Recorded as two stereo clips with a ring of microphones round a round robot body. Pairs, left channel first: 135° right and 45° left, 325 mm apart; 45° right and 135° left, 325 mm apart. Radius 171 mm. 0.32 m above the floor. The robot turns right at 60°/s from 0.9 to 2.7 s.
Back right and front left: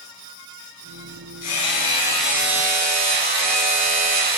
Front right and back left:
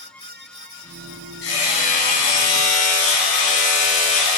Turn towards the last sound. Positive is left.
turn(degrees=-15)